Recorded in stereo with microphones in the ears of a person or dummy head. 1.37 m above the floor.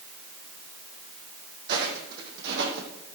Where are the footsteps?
55° right (ahead or behind), 3.5 m; by 3.0 s 65° right (ahead or behind), 3.5 m.